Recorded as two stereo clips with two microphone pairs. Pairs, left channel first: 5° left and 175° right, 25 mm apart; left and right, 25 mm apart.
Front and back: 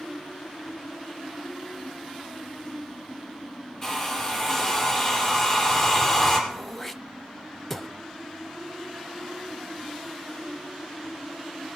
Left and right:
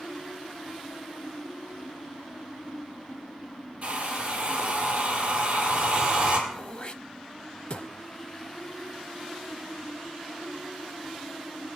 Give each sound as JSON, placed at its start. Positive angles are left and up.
{"t": 3.8, "sound": "a hair dryer", "azimuth_deg": -60, "distance_m": 5.0}
{"t": 6.5, "sound": "throat clearing", "azimuth_deg": 75, "distance_m": 0.6}